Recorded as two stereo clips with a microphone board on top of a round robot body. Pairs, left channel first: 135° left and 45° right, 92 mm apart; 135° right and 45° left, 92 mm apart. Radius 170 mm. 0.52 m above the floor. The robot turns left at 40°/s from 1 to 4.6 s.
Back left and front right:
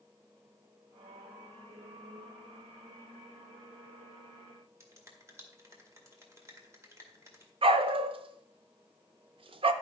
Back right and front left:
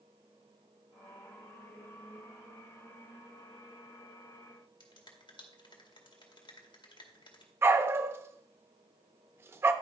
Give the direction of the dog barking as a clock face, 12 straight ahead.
1 o'clock.